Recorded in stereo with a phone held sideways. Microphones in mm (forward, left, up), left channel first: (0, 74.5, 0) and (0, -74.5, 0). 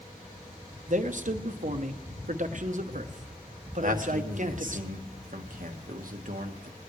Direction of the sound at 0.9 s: 60° right (ahead or behind).